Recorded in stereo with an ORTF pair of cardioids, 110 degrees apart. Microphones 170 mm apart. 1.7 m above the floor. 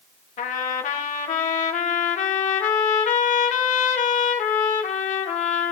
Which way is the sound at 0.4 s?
50° left.